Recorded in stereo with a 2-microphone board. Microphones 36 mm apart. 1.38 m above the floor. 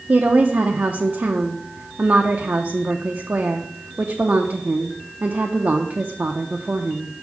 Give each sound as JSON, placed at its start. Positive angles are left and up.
{"t": 0.1, "sound": "a woman speaking", "side_deg": -65, "distance_m": 0.7}